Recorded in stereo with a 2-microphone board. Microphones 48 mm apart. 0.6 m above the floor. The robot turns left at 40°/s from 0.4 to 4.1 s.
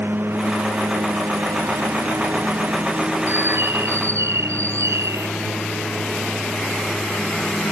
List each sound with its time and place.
0.0 s a lawn mower: 50° right; by 7.7 s 165° left
3.3 s a bird: 45° right; by 5.3 s 80° right